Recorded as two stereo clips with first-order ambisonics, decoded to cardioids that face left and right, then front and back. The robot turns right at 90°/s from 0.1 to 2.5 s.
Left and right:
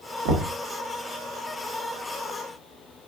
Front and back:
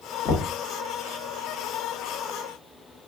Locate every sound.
0.2 s knocking: 60° right, 1.3 m; by 0.5 s 40° right, 1.3 m